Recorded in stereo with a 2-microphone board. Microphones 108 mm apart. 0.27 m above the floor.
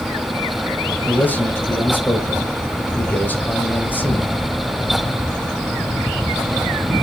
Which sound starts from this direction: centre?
A man speaking, at 1.1 s.